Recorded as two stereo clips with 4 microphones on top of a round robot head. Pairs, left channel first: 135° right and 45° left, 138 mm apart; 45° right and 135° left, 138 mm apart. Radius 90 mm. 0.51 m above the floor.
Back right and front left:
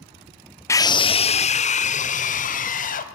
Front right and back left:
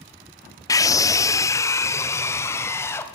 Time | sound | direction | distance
0.7 | a scream | 85° right | 0.8 m